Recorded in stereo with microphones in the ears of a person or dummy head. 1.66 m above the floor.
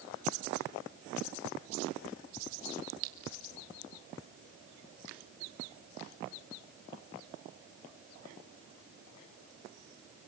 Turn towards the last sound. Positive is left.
turn(degrees=-55)  # may be behind; listen again after turning